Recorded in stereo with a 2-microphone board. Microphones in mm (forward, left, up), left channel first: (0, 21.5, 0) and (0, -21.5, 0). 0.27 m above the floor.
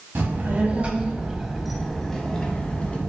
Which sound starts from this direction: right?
A child speaking, at 0.1 s.